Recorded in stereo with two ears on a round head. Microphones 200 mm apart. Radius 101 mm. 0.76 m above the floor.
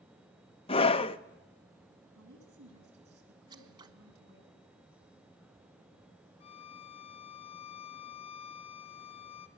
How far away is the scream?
About 0.9 m.